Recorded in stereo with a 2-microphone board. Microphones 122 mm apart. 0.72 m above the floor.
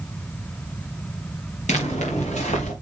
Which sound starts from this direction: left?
Footsteps, at 1.7 s.